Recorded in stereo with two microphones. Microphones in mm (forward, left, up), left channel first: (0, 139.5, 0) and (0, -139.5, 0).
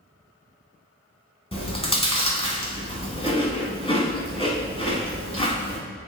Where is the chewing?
20° left (ahead or behind), 0.8 m.